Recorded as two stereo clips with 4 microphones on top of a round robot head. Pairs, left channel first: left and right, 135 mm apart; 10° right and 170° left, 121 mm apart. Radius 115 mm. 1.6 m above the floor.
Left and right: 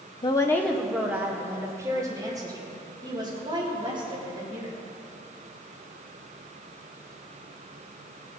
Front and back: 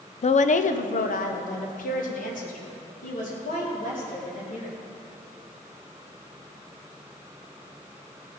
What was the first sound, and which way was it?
A woman speaking, 25° left.